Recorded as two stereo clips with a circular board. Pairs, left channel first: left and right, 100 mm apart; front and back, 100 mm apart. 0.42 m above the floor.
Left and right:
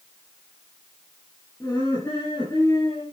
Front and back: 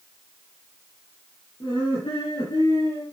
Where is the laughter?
25° left, 7.5 m; by 3.0 s 30° left, 7 m.